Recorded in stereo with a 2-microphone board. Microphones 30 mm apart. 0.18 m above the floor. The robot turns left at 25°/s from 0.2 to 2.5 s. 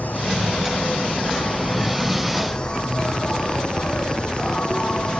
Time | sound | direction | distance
0.0 | an insect | 90° left | 2 m